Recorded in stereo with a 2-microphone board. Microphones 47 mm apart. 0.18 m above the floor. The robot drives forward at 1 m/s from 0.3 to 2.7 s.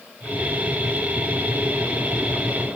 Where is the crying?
I don't hear crying.